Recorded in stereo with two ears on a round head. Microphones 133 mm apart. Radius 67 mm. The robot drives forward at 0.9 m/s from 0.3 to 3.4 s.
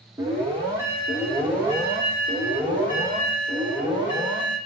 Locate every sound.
0.2 s an alarm: 20° right (ahead or behind), 4 m; by 4.6 s 15° right (ahead or behind), 6.5 m